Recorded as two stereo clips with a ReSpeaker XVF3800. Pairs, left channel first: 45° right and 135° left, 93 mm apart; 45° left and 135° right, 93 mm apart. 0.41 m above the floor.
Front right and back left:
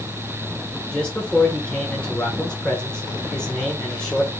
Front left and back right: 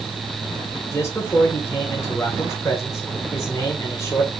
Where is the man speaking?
20° left, 1.1 m.